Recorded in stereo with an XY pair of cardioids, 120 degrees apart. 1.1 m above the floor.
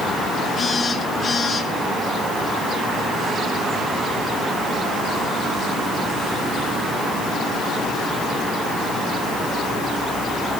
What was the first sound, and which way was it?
A phone buzzing, 30° left.